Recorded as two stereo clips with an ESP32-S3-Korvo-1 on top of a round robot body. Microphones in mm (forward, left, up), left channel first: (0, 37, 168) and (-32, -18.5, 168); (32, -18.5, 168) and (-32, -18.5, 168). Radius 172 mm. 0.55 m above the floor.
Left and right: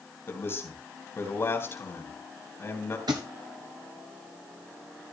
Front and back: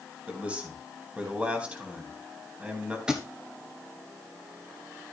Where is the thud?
100° right, 1.2 m.